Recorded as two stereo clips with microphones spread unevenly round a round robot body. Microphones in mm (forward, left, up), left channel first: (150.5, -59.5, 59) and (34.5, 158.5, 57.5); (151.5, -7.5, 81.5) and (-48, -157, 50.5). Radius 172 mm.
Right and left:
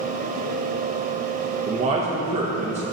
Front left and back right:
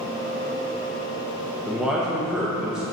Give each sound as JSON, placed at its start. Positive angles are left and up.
{"t": 1.7, "sound": "a man speaking", "azimuth_deg": 145, "distance_m": 1.0}